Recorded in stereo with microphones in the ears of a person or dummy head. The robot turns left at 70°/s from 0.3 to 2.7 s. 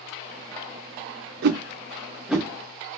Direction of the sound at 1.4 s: 55° right (ahead or behind).